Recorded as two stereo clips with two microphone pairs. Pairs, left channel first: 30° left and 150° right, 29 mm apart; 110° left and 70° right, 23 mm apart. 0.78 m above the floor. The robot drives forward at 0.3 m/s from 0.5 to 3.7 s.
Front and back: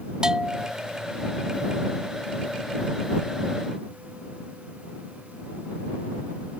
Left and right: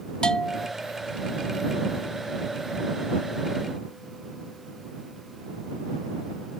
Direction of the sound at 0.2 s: 150° left.